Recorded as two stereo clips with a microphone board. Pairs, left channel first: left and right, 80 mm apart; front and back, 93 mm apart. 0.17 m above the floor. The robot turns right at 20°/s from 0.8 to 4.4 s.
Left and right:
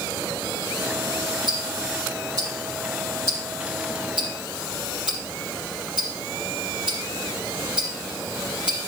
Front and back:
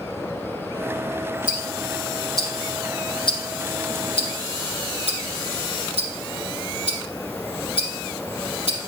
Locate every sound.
1.5 s ticking: 70° right, 4 m; by 8.8 s 10° right, 4 m